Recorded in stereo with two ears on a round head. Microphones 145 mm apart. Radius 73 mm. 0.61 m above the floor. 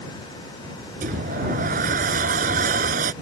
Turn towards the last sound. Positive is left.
turn(degrees=-55)  # may be behind; listen again after turning